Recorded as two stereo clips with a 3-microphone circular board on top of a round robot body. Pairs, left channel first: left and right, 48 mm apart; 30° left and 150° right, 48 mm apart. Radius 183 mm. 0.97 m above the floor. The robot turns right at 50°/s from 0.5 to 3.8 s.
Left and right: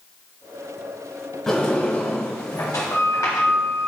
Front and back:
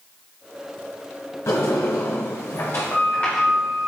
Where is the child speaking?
No child speaking in this recording.